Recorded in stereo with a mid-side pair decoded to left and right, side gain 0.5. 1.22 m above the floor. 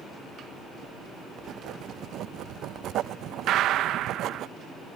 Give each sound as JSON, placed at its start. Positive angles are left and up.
{"t": 1.4, "sound": "writing", "azimuth_deg": -65}
{"t": 3.5, "sound": "a gunshot", "azimuth_deg": -70}